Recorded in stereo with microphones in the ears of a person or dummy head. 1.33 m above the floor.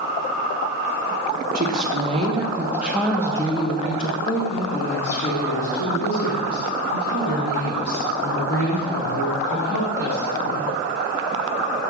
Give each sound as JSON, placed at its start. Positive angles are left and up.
{"t": 1.6, "sound": "a woman speaking", "side_deg": -45, "distance_m": 1.1}